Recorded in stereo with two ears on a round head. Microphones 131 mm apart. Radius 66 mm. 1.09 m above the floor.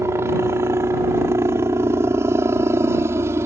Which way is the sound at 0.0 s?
20° right (ahead or behind).